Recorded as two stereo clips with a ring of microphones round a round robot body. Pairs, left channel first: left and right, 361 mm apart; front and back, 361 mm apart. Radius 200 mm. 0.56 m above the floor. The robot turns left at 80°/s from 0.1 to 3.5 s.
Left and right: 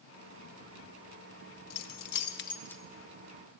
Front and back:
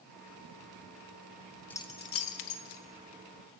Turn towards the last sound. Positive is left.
turn(degrees=-60)